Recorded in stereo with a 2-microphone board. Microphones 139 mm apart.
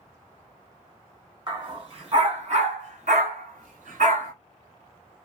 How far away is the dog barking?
About 1.5 m.